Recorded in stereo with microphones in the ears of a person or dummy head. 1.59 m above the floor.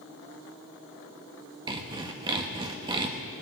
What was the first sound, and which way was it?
Sawing, 25° right (ahead or behind).